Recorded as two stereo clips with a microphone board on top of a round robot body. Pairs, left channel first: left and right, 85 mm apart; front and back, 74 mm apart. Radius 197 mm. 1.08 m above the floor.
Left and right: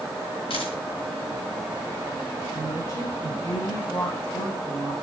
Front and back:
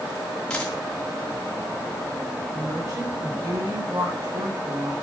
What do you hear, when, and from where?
0.5 s a dropped coin: 80° left, 2.5 m
2.5 s a woman speaking: 135° left, 9 m